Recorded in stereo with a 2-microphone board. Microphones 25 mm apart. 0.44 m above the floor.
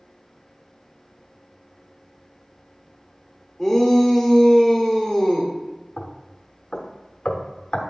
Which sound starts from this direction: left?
Knocking, at 6.0 s.